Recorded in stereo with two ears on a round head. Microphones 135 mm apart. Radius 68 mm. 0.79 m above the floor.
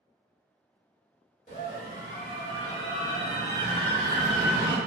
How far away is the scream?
About 1.0 m.